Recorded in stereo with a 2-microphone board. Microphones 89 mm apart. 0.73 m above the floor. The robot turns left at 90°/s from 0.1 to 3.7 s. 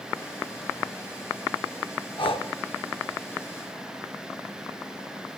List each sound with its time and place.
2.2 s breathing: 60° left (ahead or behind), 0.7 m; by 2.5 s 85° left, 0.7 m